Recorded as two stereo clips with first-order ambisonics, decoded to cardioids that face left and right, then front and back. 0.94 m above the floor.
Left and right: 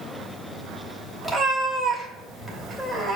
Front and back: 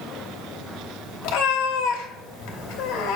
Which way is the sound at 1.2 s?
5° right.